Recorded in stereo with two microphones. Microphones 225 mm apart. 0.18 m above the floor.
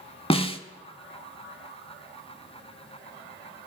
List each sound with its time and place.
0.3 s a snare drum: 25° left (ahead or behind), 0.6 m